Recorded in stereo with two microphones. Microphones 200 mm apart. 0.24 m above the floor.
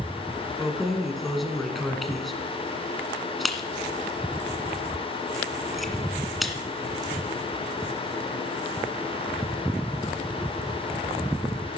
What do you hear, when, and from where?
0.6 s keys jangling: centre (ahead or behind), 1.7 m